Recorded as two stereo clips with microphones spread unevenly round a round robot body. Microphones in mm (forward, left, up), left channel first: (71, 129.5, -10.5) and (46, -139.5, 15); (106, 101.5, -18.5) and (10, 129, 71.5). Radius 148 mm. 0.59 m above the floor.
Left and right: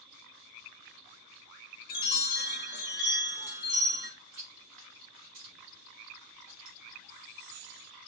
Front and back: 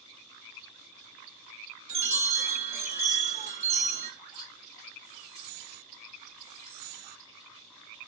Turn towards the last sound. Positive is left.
turn(degrees=-110)